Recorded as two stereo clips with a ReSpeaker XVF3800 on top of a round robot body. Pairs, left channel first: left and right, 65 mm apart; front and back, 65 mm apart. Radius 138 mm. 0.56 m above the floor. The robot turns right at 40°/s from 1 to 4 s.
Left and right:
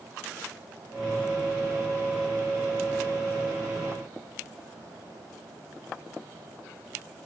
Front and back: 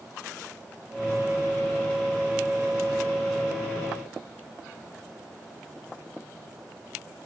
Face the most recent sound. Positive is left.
No sound to turn to.